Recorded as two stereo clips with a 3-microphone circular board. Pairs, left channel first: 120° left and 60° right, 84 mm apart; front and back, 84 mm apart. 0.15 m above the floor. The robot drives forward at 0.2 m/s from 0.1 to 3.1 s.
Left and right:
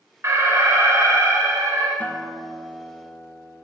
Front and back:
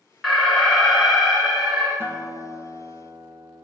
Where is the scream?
No scream in this recording.